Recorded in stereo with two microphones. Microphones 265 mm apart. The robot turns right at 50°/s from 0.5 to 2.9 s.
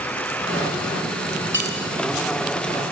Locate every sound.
1.5 s cutlery clinking: 45° right (ahead or behind), 4.5 m; by 1.9 s 30° right (ahead or behind), 4.5 m